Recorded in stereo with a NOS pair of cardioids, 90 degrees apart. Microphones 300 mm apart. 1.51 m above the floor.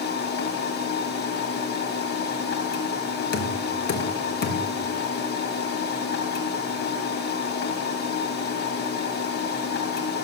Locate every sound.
0.0 s a machine running: 60° left, 1.9 m
3.3 s knocking: 60° left, 2 m